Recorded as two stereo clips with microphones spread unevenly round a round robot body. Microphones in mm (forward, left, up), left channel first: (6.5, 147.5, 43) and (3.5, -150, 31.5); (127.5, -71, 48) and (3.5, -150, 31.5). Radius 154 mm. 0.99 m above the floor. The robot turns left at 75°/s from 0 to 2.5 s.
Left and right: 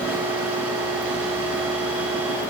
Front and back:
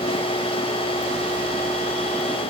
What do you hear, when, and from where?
Only background noise.